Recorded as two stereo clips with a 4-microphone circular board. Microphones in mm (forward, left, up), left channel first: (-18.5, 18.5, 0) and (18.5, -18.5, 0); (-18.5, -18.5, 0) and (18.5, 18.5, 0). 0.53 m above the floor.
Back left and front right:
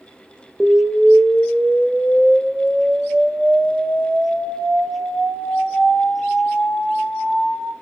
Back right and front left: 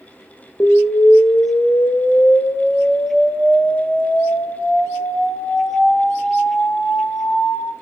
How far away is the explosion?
About 0.6 m.